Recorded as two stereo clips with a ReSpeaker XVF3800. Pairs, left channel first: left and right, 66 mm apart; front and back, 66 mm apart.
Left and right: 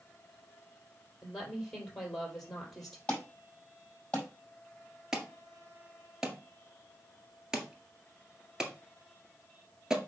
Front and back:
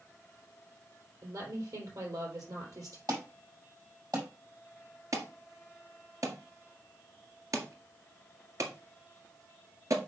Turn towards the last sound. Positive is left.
turn(degrees=-170)